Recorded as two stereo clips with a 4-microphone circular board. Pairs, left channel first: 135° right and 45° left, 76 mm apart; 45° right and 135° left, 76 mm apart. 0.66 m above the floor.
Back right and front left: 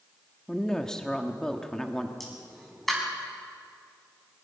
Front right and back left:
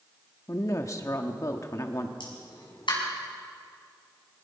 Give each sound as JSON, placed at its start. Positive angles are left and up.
{"t": 0.5, "sound": "a woman speaking", "azimuth_deg": -60, "distance_m": 1.4}
{"t": 2.2, "sound": "a pop", "azimuth_deg": -50, "distance_m": 5.5}